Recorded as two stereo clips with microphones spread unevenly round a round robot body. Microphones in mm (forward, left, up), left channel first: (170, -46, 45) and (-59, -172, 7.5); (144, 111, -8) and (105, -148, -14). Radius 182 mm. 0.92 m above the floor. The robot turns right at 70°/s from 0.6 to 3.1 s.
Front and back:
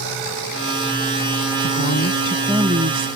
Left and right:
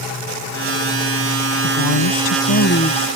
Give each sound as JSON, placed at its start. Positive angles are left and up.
{"t": 1.6, "sound": "a woman speaking", "azimuth_deg": 60}